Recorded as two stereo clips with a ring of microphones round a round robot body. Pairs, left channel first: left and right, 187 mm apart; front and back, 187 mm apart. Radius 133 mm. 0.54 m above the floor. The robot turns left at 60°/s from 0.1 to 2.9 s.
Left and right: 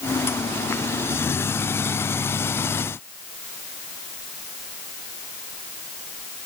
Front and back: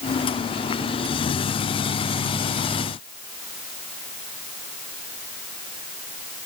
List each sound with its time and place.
Only background noise.